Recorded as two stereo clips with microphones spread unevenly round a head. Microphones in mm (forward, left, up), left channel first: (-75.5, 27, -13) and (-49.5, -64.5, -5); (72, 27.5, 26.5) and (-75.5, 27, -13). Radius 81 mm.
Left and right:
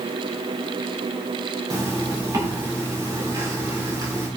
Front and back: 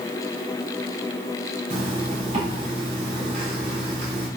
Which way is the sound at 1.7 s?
120° right.